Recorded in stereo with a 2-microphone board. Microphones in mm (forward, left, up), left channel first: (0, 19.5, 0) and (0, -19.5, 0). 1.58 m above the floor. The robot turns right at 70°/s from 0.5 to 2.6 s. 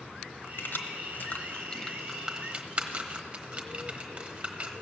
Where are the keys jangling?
55° left (ahead or behind), 1.0 m; by 4.7 s 30° right (ahead or behind), 1.0 m.